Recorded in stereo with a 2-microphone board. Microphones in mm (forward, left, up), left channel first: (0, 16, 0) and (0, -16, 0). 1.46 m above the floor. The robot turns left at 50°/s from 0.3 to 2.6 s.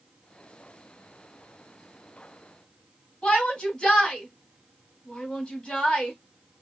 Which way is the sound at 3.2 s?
40° left (ahead or behind).